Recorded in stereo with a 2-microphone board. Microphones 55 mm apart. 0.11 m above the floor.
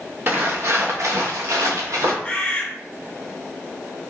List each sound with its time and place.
0.3 s footsteps: 40° right (ahead or behind), 0.9 m; by 2.1 s 75° right (ahead or behind), 1.1 m
2.2 s a bird: 20° left (ahead or behind), 0.7 m